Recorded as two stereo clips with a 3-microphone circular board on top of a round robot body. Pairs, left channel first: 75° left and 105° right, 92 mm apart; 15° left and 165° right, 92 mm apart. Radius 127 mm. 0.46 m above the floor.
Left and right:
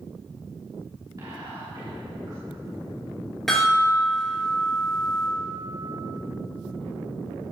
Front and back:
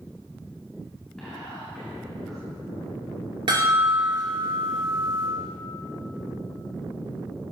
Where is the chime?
160° left, 4 m.